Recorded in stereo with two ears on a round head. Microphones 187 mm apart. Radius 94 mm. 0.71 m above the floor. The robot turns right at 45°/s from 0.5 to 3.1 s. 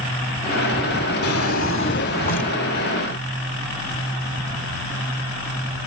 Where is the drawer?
85° left, 1.4 m; by 2.5 s 145° left, 1.4 m.